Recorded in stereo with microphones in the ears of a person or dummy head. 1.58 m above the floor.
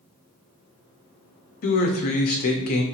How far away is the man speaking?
About 0.6 m.